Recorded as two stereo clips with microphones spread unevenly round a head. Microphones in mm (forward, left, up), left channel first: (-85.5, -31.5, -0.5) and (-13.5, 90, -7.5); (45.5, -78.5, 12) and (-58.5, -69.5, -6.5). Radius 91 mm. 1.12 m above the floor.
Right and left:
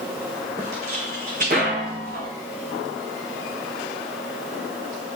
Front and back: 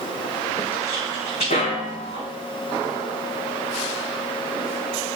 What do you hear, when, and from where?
0.6 s footsteps: 5° left, 2 m; by 2.3 s 15° left, 3.5 m